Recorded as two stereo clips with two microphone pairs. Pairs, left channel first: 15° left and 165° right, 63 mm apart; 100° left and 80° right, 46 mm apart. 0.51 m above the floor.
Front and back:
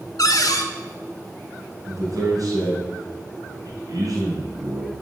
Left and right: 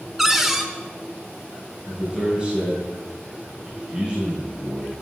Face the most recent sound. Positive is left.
turn(degrees=-145)